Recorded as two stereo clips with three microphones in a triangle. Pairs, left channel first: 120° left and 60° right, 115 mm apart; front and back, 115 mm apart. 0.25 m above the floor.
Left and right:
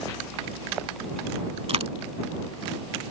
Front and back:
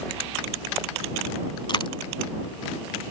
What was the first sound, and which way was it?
A dropped coin, 40° right.